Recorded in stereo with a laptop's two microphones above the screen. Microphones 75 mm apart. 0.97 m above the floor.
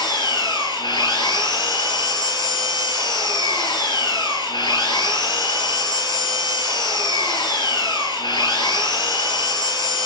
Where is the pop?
No pop in this recording.